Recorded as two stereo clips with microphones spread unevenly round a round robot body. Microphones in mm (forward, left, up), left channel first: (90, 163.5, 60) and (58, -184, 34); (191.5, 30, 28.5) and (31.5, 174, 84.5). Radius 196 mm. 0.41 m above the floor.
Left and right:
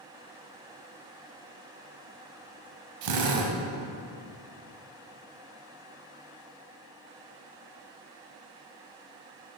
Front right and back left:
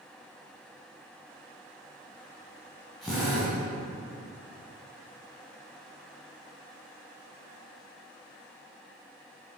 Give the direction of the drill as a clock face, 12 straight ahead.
4 o'clock.